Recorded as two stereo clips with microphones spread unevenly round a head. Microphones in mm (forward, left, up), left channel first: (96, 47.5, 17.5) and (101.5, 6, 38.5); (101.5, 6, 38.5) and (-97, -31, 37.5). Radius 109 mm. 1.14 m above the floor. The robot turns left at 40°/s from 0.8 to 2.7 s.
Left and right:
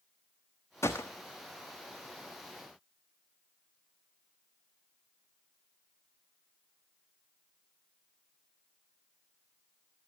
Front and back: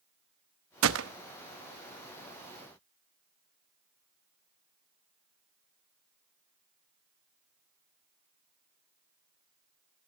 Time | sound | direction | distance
0.8 | a gunshot | 165° left | 1.0 m